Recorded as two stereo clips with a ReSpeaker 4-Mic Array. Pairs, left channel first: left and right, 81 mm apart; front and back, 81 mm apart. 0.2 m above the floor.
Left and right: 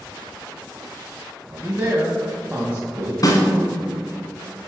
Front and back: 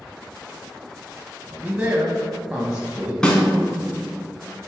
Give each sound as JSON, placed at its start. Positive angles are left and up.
{"t": 1.5, "sound": "a man speaking", "azimuth_deg": -120, "distance_m": 1.0}
{"t": 3.2, "sound": "a snare drum", "azimuth_deg": 75, "distance_m": 1.3}